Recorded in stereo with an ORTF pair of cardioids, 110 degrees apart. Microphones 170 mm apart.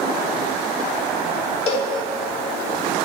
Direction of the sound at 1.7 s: 40° left.